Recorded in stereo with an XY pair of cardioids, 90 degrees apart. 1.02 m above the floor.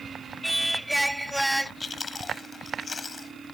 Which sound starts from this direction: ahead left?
Chewing, at 1.8 s.